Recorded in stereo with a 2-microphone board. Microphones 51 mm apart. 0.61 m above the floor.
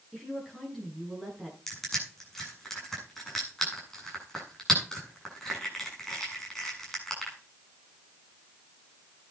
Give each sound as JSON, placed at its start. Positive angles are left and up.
{"t": 0.1, "sound": "a woman speaking", "side_deg": 0, "distance_m": 8.5}
{"t": 1.7, "sound": "crushing", "side_deg": 5, "distance_m": 7.5}